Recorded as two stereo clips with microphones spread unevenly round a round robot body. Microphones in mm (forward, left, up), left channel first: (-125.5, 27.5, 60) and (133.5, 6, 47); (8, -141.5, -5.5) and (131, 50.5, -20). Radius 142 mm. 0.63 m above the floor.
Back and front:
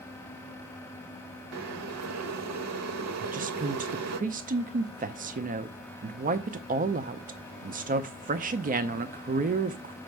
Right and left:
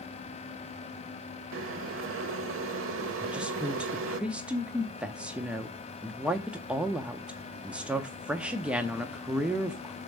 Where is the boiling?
25° left, 0.8 m.